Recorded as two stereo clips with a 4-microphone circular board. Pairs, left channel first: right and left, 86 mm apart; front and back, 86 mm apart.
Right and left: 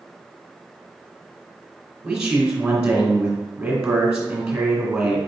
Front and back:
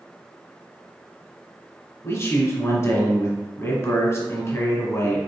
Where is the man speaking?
20° left, 1.3 m.